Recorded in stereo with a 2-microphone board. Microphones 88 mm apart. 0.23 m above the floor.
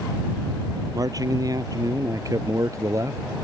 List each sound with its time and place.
0.9 s a man speaking: 45° right (ahead or behind); by 3.2 s 35° right (ahead or behind)